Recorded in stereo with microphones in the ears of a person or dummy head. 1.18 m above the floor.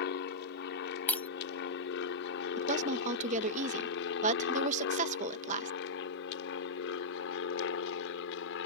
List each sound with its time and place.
0.0 s an aircraft: 60° left (ahead or behind); by 8.7 s 65° left (ahead or behind)
1.1 s breaking glass: 15° left (ahead or behind)
2.6 s a woman speaking: 35° right (ahead or behind)